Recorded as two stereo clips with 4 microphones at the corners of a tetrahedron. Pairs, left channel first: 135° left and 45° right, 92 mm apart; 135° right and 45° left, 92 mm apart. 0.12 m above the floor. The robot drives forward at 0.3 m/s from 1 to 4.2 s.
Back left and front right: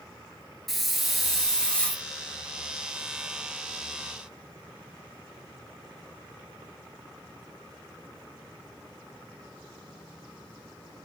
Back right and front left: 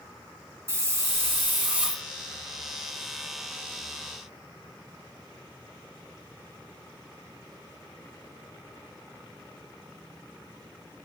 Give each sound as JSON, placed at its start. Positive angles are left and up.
{"t": 0.7, "sound": "a hiss", "azimuth_deg": 40, "distance_m": 0.7}